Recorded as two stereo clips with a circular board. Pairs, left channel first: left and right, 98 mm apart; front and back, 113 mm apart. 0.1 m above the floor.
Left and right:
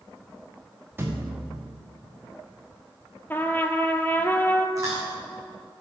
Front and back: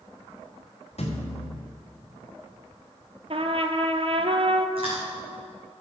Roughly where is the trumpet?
Behind left.